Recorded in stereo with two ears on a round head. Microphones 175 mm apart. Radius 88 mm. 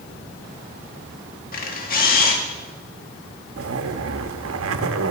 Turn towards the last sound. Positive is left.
turn(degrees=-80)